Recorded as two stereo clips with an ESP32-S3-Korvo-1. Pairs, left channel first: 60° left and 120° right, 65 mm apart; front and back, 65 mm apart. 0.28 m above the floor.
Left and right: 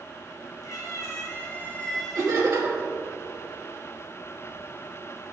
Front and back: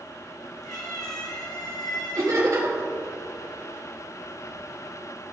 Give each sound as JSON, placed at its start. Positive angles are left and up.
{"t": 0.6, "sound": "a cat meowing", "azimuth_deg": 30, "distance_m": 1.8}
{"t": 2.1, "sound": "laughter", "azimuth_deg": -170, "distance_m": 3.0}